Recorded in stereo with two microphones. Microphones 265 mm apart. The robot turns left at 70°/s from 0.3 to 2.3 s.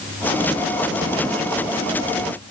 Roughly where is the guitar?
I don't hear a guitar.